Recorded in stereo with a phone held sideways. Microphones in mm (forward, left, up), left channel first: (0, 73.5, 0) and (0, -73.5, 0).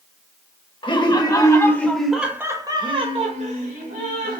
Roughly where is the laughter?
Left.